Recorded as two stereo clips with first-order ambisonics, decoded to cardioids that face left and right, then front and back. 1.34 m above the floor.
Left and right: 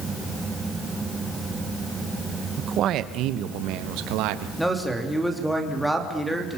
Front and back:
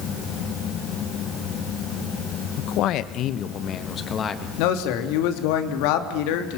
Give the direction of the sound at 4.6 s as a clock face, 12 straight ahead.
12 o'clock.